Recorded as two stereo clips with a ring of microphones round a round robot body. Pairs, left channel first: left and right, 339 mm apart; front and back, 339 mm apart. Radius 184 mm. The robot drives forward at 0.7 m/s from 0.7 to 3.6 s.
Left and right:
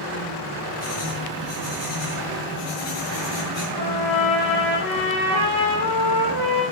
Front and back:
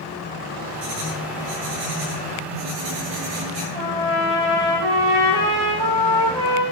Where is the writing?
170° left, 8 m.